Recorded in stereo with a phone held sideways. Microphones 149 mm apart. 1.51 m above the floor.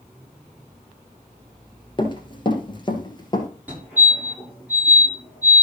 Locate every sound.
2.0 s running footsteps: 30° left (ahead or behind), 1.8 m; by 3.5 s 25° left (ahead or behind), 2.0 m
3.7 s a fire alarm: 10° right (ahead or behind), 6 m